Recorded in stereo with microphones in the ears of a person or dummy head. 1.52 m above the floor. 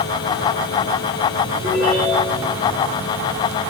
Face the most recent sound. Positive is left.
turn(degrees=-20)  # may be behind; listen again after turning